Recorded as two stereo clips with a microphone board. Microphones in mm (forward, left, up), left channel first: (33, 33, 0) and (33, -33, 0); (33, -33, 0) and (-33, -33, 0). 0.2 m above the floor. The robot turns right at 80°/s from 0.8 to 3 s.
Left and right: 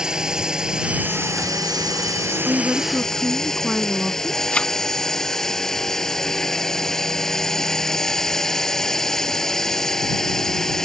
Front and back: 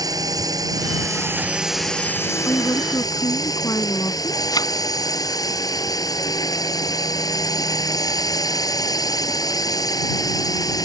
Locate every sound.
0.0 s a drone: 170° right; by 10.9 s 10° left
2.5 s a woman speaking: 50° right; by 4.4 s 5° right
4.5 s a thud: 20° left